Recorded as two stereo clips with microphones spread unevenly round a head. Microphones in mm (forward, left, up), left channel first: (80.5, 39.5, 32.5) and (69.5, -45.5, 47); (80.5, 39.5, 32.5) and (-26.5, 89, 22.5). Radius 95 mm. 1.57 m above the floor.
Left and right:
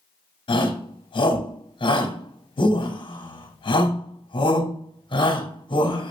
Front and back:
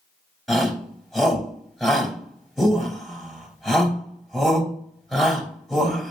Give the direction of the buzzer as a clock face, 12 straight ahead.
No buzzer in this recording.